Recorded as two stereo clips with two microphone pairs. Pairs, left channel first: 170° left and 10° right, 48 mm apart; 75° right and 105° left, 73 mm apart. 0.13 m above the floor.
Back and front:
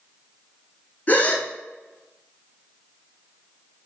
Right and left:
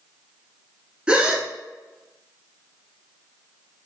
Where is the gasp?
175° left, 0.8 m.